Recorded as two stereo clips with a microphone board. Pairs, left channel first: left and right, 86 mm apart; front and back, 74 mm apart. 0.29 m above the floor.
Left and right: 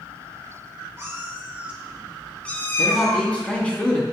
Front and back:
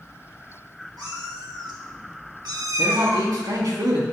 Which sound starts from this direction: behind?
A man speaking, at 2.8 s.